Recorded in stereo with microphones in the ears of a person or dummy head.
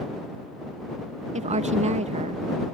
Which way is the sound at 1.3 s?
35° right (ahead or behind).